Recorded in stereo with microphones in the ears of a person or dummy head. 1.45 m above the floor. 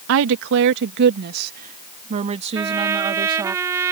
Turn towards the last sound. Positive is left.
turn(degrees=-20)  # may be behind; listen again after turning